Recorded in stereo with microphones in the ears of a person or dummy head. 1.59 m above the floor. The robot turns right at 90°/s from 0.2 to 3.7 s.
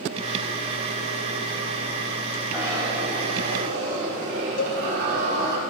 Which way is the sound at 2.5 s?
Straight behind.